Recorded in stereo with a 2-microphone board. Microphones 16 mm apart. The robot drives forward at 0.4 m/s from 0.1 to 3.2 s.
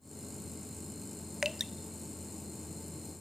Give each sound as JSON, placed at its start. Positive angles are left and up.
{"t": 1.4, "sound": "dripping", "side_deg": -20, "distance_m": 0.6}